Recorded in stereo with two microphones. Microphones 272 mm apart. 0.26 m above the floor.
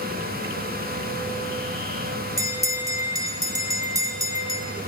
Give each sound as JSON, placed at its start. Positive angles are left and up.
{"t": 2.4, "sound": "a bell", "side_deg": -10, "distance_m": 1.5}